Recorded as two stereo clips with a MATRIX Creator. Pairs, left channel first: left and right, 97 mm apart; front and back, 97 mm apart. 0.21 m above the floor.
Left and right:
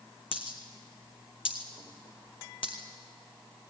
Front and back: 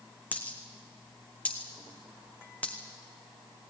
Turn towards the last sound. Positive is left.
turn(degrees=75)